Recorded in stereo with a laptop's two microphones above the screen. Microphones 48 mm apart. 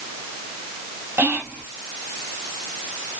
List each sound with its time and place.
1.2 s whispering: 50° right (ahead or behind), 2.5 m